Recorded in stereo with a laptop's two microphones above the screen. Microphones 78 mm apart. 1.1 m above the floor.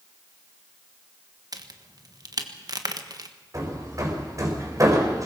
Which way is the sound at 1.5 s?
55° right (ahead or behind).